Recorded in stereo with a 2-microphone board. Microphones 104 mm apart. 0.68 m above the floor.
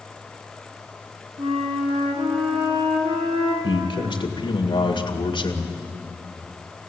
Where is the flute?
65° right (ahead or behind), 4.5 m.